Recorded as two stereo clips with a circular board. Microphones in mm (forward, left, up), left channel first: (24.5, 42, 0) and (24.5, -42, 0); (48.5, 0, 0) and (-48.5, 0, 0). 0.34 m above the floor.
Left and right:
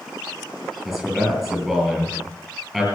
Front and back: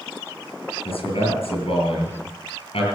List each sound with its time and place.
0.8 s a man speaking: 5° left, 7 m